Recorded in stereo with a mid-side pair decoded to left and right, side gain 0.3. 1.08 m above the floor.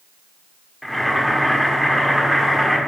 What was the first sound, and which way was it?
Boiling, 5° left.